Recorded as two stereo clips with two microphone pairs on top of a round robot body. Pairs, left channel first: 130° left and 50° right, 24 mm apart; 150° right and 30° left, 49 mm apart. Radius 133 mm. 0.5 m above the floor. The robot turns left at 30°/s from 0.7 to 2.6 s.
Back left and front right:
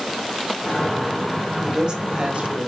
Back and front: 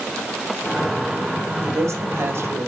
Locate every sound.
1.6 s a woman speaking: 25° left, 2.5 m; by 2.7 s 5° right, 2.5 m